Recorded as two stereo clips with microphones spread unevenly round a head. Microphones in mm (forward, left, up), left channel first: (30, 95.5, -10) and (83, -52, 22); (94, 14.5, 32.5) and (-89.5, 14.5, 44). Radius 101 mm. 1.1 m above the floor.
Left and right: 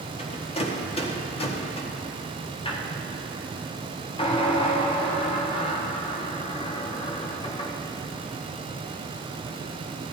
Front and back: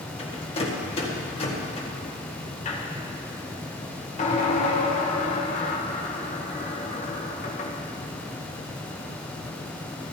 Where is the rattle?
60° left, 1.8 m.